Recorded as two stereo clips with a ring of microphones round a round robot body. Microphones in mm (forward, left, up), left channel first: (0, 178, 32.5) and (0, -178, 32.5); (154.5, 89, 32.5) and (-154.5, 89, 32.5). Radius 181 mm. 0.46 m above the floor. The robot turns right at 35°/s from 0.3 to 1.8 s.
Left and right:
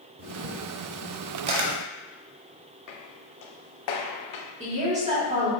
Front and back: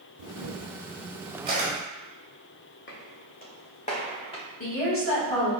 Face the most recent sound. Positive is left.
turn(degrees=-25)